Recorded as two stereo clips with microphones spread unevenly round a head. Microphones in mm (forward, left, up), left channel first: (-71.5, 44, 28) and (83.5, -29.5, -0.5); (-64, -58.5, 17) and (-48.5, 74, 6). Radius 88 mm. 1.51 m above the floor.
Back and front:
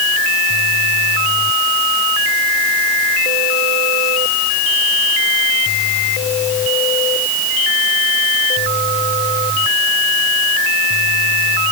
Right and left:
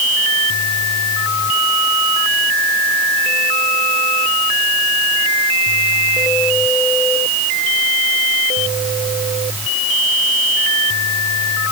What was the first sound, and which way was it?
Only background noise.